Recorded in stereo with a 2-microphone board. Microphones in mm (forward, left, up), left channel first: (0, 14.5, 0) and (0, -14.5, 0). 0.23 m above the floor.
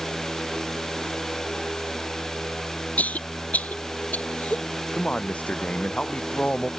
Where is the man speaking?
60° left (ahead or behind).